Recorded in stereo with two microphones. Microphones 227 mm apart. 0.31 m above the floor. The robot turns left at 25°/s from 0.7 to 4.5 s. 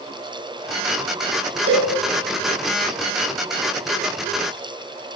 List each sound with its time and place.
1.7 s a cowbell: 75° right (ahead or behind), 1.6 m; by 1.9 s 80° right, 1.6 m